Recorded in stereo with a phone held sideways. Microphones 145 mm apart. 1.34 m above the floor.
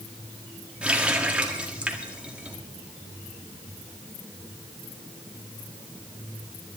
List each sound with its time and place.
0.8 s a running tap: 5° right (ahead or behind), 1.7 m